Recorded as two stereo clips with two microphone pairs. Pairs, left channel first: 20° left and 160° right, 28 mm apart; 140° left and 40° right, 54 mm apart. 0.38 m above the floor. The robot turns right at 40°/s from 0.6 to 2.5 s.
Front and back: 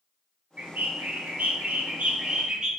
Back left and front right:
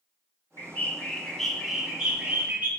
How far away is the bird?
About 0.6 m.